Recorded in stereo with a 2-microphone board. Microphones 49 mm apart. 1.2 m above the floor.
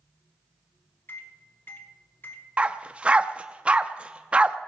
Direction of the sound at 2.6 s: 25° right (ahead or behind).